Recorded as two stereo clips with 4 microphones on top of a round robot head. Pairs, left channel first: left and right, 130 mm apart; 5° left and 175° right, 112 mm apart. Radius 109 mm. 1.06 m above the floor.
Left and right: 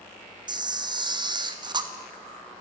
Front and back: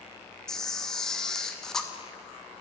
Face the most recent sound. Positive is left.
turn(degrees=-75)